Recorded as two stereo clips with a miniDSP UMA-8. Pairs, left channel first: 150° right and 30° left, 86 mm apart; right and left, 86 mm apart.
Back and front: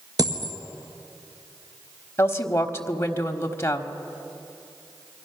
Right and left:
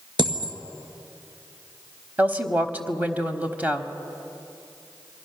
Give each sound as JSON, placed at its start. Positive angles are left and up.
{"t": 0.2, "sound": "a dropped coin", "azimuth_deg": 70, "distance_m": 1.7}
{"t": 2.2, "sound": "a woman speaking", "azimuth_deg": 155, "distance_m": 1.3}